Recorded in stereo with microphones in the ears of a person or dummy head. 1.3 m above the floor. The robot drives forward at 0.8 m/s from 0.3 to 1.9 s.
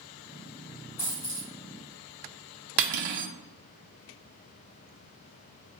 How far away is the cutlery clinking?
About 0.6 m.